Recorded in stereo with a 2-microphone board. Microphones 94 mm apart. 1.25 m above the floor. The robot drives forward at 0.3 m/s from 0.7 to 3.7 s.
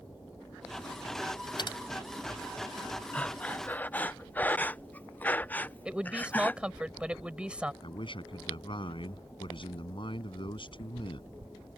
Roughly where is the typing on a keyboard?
Left.